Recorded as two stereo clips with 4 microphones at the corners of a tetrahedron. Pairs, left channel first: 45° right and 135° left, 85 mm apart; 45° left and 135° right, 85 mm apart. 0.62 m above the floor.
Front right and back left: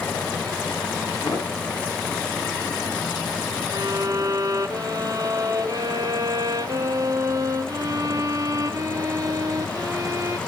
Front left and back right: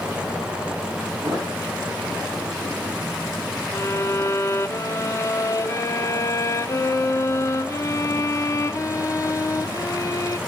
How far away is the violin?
About 0.6 m.